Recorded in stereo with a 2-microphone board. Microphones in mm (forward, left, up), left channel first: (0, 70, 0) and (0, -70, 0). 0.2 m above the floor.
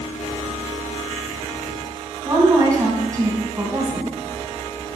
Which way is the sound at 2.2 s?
25° right (ahead or behind).